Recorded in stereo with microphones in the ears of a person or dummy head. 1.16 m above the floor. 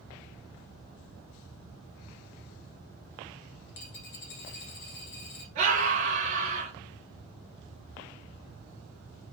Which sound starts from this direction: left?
A dropped coin, at 3.7 s.